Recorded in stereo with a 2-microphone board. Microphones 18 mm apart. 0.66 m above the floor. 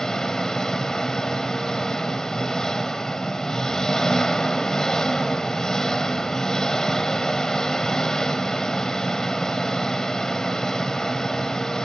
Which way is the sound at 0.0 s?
30° left (ahead or behind).